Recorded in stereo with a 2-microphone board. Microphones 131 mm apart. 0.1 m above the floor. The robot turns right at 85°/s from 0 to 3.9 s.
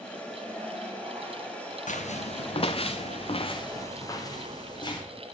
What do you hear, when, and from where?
1.9 s footsteps: 75° left (ahead or behind), 1.5 m; by 5.0 s 35° left (ahead or behind), 3 m